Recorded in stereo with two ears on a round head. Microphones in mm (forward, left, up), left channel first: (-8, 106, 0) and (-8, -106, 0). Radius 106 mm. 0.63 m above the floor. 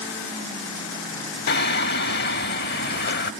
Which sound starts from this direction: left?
Singing, at 1.5 s.